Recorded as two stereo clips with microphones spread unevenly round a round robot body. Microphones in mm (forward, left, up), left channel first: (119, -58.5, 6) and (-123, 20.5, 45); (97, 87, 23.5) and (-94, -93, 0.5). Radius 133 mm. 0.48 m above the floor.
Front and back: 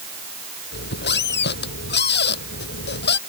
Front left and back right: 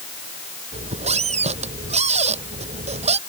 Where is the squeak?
70° right.